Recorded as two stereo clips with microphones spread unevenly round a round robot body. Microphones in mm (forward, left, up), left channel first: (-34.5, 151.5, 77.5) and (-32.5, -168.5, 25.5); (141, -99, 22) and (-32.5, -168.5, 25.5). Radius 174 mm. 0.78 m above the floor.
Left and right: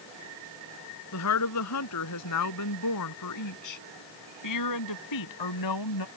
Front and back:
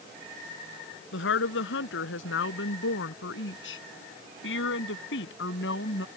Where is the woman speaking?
50° left; by 6.1 s 65° left.